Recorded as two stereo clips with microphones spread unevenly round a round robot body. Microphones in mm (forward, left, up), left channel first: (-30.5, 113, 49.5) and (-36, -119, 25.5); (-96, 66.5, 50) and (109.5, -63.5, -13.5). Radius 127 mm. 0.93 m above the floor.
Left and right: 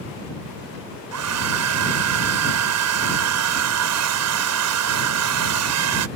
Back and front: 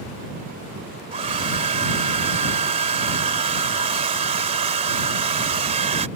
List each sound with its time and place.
1.1 s a hair dryer: 100° right